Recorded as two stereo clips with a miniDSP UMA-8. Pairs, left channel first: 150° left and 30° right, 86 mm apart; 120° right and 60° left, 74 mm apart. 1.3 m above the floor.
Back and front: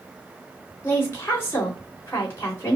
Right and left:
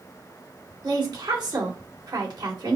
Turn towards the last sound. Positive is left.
turn(degrees=90)